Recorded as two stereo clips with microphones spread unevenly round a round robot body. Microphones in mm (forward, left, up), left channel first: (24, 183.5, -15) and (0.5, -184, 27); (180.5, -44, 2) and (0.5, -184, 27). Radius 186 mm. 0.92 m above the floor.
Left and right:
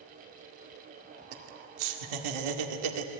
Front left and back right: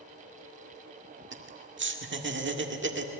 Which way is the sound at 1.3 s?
105° right.